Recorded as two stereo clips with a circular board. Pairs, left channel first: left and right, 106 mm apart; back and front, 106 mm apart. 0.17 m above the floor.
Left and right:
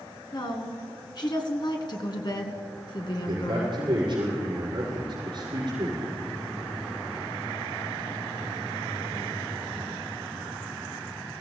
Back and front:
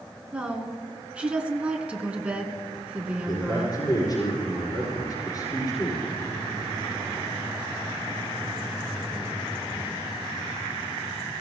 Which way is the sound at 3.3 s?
130° right.